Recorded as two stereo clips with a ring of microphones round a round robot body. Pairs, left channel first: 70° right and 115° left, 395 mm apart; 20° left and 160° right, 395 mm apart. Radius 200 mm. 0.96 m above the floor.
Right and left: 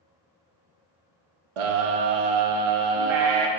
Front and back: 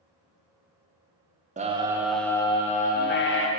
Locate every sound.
1.6 s a scream: 130° left, 1.1 m; by 3.5 s 85° left, 1.5 m